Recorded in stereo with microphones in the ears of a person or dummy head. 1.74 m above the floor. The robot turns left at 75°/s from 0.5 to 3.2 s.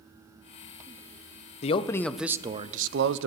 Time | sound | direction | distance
1.6 | a man speaking | 40° left | 0.6 m